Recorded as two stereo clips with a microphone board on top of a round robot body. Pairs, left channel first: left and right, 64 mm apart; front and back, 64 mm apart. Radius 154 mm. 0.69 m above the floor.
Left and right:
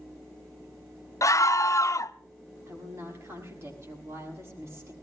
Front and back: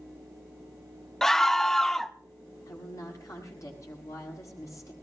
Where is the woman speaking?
40° right, 7 m.